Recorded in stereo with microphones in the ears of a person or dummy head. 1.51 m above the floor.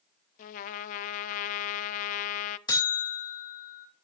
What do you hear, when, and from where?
0.4 s a trumpet: 40° left (ahead or behind), 0.5 m
2.7 s a buzzer: 25° left (ahead or behind), 2.5 m